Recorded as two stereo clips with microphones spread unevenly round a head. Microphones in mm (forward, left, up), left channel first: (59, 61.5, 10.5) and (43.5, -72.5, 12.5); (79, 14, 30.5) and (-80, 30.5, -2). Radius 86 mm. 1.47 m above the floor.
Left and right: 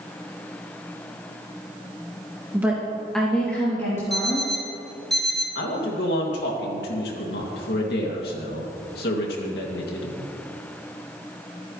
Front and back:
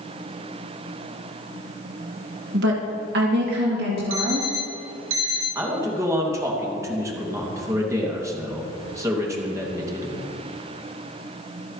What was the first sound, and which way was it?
A woman speaking, 175° right.